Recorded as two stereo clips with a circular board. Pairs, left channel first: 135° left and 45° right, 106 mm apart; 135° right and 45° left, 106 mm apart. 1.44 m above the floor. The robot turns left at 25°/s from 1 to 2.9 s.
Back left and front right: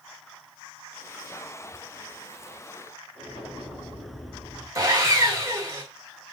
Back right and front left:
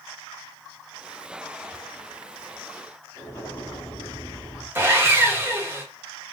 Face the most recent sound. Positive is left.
turn(degrees=-10)